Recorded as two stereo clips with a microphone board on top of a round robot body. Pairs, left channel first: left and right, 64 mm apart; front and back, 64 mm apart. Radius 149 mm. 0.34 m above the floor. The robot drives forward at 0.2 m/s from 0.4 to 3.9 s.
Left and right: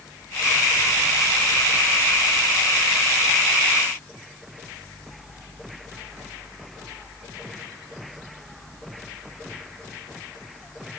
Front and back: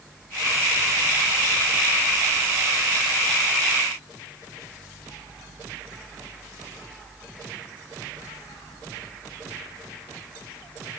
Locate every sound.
Only background noise.